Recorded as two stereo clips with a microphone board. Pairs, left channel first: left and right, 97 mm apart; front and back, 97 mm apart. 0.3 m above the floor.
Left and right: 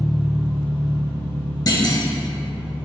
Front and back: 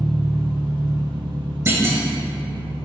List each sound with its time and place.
0.0 s an engine running: 155° left, 1.2 m
1.7 s a clunk: 120° left, 0.5 m